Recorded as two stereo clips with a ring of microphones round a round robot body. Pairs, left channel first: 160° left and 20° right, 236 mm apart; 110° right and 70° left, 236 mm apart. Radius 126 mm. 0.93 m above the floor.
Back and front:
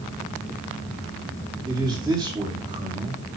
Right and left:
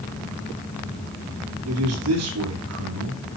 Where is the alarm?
No alarm in this recording.